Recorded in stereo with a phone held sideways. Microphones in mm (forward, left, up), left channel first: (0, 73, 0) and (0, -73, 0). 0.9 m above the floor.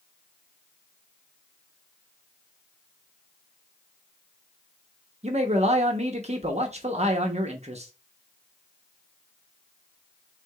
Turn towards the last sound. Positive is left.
turn(degrees=-50)  # may be behind; listen again after turning